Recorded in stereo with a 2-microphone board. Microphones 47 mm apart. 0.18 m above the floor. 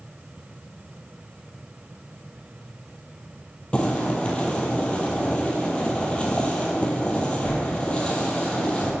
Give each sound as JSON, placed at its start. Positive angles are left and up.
{"t": 3.7, "sound": "boiling", "side_deg": 20, "distance_m": 1.1}